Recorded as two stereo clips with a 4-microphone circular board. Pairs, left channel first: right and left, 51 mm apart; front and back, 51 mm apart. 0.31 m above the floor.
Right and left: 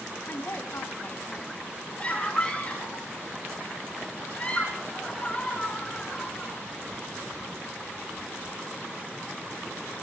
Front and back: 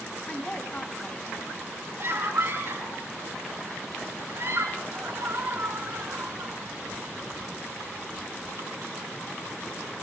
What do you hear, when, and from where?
0.3 s a woman speaking: 65° right, 3 m
2.0 s a scream: 155° right, 3.5 m